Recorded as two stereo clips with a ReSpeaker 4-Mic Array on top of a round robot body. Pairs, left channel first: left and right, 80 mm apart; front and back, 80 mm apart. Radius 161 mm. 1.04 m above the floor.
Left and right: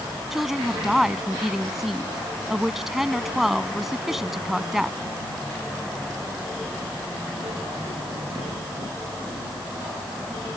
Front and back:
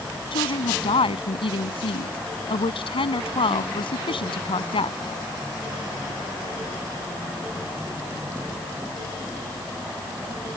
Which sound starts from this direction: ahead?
A woman speaking, at 0.3 s.